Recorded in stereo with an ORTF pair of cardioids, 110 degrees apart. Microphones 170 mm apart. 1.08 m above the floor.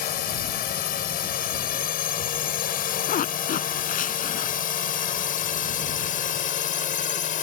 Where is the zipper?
50° left.